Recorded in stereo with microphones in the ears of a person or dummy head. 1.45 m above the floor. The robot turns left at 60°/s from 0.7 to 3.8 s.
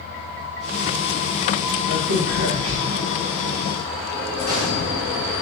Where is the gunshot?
70° left (ahead or behind), 2 m.